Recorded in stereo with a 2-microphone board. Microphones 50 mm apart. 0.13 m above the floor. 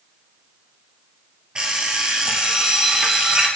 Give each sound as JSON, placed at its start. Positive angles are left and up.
{"t": 1.6, "sound": "an alarm clock", "side_deg": -20, "distance_m": 1.7}